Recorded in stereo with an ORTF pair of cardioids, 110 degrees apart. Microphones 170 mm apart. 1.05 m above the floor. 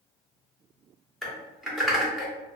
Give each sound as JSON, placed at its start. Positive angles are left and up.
{"t": 1.2, "sound": "typing on a keyboard", "azimuth_deg": 0, "distance_m": 0.9}